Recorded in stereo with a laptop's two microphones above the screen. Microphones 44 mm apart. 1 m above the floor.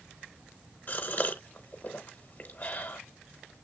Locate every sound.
0.9 s a gasp: 40° left (ahead or behind), 0.9 m